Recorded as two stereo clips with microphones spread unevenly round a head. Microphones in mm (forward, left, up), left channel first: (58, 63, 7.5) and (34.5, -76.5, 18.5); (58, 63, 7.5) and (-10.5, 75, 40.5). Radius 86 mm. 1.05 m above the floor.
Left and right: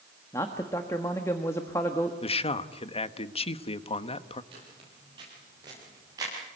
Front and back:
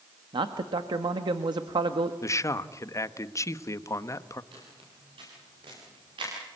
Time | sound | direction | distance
0.3 | a man speaking | 155° left | 1.3 m
2.2 | a man speaking | 30° left | 1.1 m
4.5 | footsteps | 160° right | 10 m